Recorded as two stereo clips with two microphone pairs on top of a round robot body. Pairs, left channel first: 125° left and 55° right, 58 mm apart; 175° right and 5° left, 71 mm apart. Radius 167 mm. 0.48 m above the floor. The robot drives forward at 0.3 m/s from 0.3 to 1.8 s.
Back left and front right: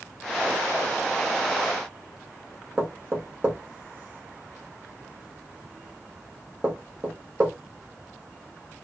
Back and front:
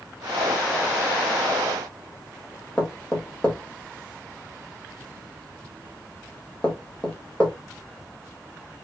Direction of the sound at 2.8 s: 110° right.